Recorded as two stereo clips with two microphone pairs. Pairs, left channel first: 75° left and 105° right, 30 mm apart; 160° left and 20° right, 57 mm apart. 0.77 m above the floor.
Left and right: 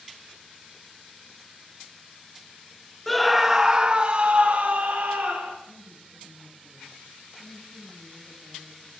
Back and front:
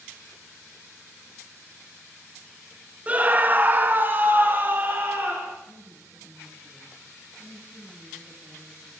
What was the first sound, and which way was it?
A scream, straight ahead.